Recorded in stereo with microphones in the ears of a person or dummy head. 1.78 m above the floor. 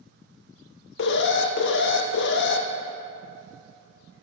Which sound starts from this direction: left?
An alarm, at 1.0 s.